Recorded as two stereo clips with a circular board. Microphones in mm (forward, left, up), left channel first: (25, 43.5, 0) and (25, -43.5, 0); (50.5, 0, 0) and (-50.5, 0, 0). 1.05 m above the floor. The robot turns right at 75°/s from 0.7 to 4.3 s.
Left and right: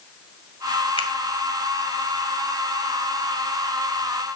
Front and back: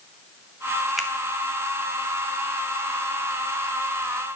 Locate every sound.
1.0 s a finger snap: 90° left, 1.8 m; by 1.1 s 100° left, 1.8 m